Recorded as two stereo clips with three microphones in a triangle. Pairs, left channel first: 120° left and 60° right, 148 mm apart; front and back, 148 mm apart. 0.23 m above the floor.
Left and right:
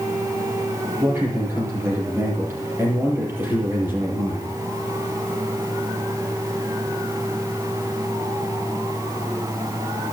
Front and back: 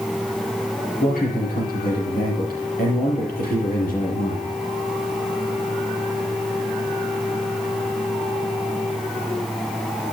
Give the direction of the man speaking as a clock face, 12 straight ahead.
12 o'clock.